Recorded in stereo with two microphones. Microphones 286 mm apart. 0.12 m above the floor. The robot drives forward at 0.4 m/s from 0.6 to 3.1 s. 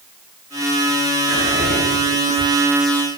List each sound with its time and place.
1.3 s whispering: 20° left (ahead or behind), 1.3 m